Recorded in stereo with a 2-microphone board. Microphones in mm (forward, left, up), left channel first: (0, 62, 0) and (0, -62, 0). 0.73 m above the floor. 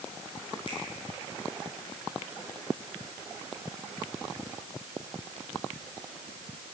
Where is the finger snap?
40° left (ahead or behind), 8 m.